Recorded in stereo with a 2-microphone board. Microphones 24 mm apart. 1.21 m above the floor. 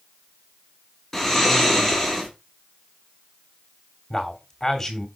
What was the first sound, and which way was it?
Snoring, 10° left (ahead or behind).